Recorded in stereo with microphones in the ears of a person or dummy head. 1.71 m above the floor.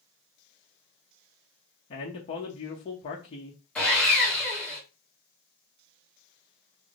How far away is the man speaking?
About 0.5 m.